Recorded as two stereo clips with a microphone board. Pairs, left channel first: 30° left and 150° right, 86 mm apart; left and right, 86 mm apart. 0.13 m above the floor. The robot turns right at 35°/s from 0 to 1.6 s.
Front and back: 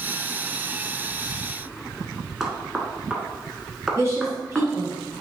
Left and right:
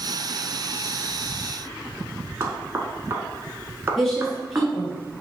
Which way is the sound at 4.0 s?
175° left.